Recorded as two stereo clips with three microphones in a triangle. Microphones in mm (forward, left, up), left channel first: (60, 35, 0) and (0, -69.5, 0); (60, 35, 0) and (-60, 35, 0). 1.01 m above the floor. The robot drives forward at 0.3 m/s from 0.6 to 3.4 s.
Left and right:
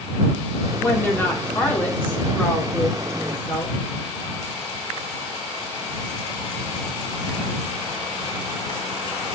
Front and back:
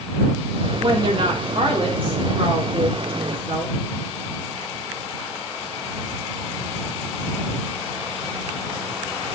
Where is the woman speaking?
130° left, 2.5 m; by 3.7 s 140° left, 3.5 m.